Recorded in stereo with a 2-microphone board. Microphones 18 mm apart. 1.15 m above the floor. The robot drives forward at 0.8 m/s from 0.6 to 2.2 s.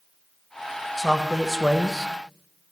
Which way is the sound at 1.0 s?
Centre (ahead or behind).